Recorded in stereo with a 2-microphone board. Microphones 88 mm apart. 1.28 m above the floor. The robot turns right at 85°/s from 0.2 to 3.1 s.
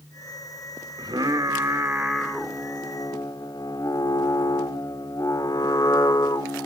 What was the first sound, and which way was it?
Singing, 115° right.